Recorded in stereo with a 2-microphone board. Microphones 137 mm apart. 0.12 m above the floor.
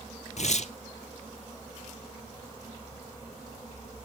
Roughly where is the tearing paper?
Left.